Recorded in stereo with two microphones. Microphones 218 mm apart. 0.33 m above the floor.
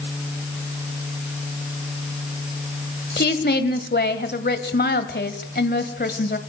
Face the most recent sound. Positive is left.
turn(degrees=50)  # may be behind; listen again after turning